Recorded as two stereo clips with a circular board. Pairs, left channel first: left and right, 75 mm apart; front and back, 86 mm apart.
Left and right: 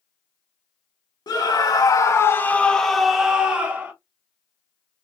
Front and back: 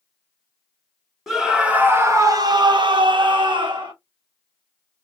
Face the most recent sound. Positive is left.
turn(degrees=-155)